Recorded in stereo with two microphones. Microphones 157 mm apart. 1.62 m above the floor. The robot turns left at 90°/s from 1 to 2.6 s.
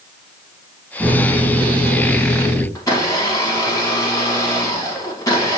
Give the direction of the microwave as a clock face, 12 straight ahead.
7 o'clock.